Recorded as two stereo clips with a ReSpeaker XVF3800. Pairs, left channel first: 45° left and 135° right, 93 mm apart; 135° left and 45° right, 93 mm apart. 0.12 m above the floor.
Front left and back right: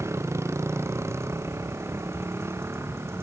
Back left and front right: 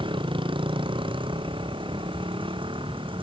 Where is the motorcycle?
75° right; by 3.2 s 70° right.